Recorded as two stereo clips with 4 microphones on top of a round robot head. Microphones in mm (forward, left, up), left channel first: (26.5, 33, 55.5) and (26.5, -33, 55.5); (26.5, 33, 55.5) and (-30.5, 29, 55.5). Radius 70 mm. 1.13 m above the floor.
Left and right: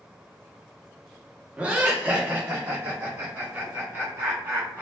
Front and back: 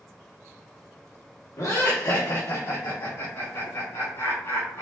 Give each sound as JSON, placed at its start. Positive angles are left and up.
{"t": 1.6, "sound": "laughter", "azimuth_deg": -20, "distance_m": 1.0}